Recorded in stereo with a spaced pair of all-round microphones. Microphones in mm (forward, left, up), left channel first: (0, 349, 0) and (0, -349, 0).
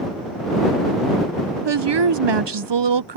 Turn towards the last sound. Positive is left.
turn(degrees=-40)  # may be behind; listen again after turning